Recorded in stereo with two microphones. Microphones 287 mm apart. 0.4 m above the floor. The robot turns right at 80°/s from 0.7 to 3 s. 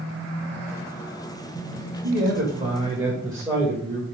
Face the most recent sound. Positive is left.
turn(degrees=-15)